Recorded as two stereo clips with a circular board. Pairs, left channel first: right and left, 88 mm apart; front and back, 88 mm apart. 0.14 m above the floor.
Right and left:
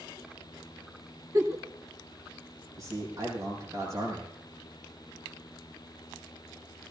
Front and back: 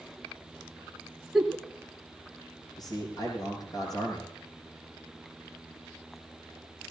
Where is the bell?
I don't hear a bell.